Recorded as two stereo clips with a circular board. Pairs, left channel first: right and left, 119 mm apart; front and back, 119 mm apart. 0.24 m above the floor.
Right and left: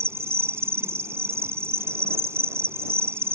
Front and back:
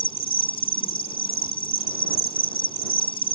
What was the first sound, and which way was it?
An insect, 25° left.